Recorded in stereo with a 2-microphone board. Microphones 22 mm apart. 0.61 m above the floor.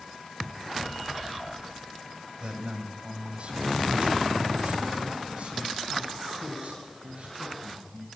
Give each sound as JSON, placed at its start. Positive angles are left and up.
{"t": 2.4, "sound": "a man speaking", "side_deg": -40, "distance_m": 3.5}